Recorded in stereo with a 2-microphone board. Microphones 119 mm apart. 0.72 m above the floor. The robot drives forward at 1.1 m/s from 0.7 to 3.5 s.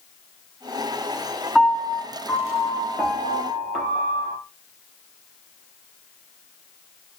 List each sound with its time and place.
1.6 s a piano: 5° right (ahead or behind), 1.8 m; by 4.4 s centre (ahead or behind), 4 m